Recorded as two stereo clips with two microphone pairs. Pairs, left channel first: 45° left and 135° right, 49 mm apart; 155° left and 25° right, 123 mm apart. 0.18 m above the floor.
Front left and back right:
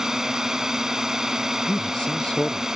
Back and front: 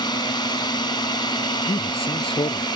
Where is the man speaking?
115° left.